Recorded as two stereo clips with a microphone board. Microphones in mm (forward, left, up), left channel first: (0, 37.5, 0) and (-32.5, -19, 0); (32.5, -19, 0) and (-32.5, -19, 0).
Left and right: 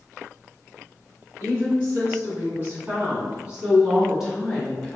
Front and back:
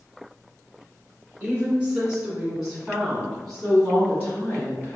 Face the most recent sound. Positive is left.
turn(degrees=-20)